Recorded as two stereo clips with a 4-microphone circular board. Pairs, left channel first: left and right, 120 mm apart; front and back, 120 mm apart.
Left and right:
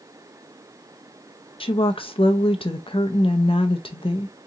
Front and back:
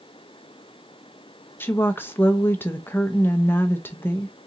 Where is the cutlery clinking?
I don't hear cutlery clinking.